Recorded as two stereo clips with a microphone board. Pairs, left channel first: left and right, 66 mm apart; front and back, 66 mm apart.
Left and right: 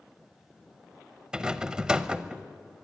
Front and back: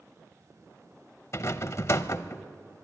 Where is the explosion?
I don't hear an explosion.